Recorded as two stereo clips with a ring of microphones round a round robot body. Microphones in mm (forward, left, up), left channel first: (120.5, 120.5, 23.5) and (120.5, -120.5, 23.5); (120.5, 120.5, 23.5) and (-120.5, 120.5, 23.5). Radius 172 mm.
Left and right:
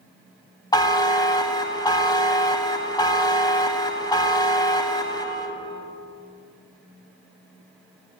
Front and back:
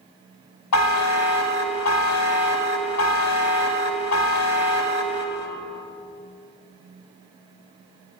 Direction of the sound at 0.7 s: 15° left.